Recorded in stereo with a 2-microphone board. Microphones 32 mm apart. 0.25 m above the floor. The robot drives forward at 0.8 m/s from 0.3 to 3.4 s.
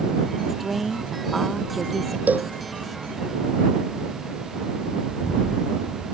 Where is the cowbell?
70° right (ahead or behind); by 2.5 s 65° right (ahead or behind).